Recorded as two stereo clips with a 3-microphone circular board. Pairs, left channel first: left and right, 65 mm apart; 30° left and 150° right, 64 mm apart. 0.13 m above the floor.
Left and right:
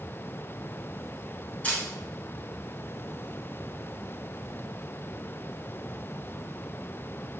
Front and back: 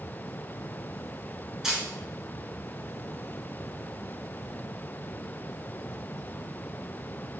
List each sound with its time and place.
1.6 s a camera shutter: 135° left, 0.8 m